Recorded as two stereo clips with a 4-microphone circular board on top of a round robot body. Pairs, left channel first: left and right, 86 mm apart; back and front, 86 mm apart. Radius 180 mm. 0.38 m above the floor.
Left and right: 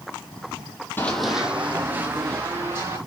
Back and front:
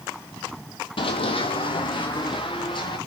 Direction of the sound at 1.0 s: 155° left.